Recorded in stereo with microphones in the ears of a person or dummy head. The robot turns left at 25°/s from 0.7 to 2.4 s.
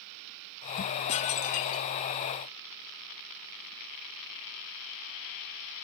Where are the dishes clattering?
35° left (ahead or behind), 0.9 m; by 1.9 s 50° left (ahead or behind), 0.9 m.